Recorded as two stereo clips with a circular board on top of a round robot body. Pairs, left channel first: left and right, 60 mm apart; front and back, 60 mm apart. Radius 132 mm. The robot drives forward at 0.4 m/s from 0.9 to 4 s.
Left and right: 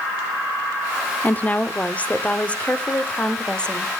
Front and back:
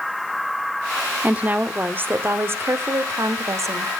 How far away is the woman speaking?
About 1.1 m.